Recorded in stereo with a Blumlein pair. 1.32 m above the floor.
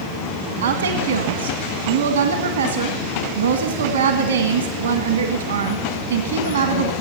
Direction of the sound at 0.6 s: 70° right.